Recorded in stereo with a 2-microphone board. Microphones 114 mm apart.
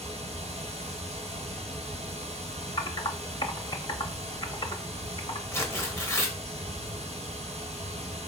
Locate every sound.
0.0 s running water: 70° right (ahead or behind), 1.0 m
2.8 s typing on a keyboard: 40° left (ahead or behind), 0.6 m
5.5 s tearing paper: 25° left (ahead or behind), 0.7 m